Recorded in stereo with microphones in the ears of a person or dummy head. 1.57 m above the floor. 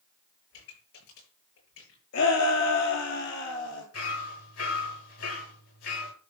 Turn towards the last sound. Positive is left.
turn(degrees=80)